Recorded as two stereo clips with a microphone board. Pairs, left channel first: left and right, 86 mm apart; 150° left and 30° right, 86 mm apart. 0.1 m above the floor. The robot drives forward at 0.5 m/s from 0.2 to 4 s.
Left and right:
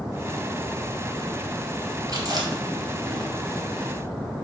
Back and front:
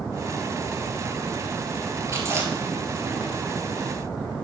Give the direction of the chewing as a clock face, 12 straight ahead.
2 o'clock.